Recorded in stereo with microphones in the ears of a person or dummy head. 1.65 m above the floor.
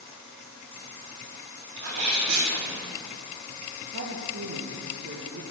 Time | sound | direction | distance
1.8 | a sneeze | 90° right | 4.5 m
3.9 | a woman speaking | 45° right (ahead or behind) | 1.6 m